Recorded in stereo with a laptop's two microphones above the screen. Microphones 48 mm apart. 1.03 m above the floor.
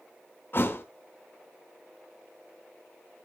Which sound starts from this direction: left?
A thud, at 0.5 s.